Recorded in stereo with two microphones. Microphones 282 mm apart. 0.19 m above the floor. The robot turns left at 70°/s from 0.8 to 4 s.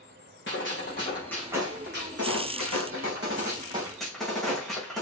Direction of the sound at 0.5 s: 40° left.